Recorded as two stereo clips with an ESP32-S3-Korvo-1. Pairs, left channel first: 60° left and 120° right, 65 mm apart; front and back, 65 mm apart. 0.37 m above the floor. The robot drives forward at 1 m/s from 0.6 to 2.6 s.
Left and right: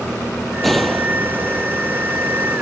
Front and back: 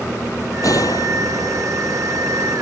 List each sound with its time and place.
0.6 s a gunshot: 25° right; by 1.7 s 30° right